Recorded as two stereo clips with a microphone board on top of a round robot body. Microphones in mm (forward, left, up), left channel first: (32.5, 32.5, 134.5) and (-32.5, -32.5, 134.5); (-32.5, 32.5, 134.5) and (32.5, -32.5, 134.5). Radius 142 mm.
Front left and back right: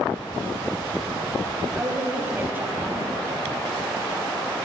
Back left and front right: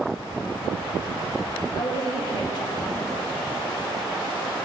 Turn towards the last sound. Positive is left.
turn(degrees=160)